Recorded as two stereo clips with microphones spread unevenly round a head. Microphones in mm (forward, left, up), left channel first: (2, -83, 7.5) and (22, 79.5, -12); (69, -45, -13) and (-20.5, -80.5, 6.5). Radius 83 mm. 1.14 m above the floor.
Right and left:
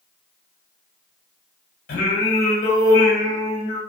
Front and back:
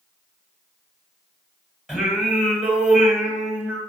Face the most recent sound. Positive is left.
turn(degrees=-80)